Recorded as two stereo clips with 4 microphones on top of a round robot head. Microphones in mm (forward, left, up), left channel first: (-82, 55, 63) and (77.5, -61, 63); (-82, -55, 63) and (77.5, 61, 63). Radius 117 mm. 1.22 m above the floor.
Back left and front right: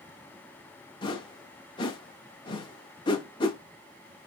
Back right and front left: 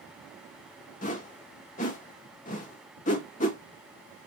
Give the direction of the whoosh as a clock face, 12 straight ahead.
5 o'clock.